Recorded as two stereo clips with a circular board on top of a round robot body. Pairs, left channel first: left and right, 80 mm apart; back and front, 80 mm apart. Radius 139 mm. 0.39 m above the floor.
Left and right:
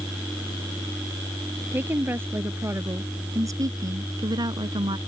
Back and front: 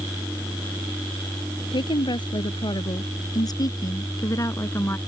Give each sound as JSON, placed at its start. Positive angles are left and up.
{"t": 1.7, "sound": "a woman speaking", "azimuth_deg": -155}